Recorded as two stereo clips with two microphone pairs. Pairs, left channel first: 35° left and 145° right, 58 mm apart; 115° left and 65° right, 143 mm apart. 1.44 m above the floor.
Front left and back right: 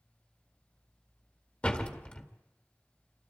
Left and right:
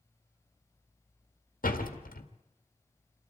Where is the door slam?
105° left, 2.0 m.